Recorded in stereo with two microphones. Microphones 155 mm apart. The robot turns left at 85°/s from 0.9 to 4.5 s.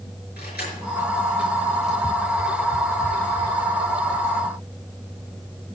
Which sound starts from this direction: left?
Keys jangling, at 0.4 s.